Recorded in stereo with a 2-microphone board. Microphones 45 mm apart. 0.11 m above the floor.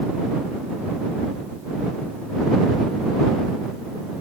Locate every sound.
Only background noise.